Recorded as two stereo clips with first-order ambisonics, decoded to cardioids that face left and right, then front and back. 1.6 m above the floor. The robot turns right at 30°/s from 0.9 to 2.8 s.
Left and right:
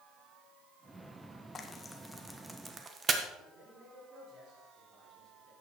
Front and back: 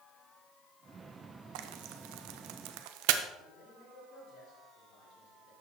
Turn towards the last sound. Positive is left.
turn(degrees=-35)